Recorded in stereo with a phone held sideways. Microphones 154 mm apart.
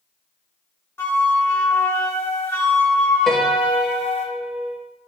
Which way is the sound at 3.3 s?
Centre (ahead or behind).